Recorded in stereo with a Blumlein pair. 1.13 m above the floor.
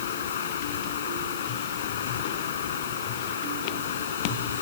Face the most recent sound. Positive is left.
turn(degrees=60)